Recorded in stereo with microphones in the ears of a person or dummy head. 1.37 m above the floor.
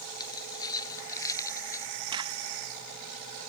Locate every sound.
0.2 s keys jangling: 25° left (ahead or behind); by 1.9 s 20° left (ahead or behind)
2.1 s a crack: 25° right (ahead or behind)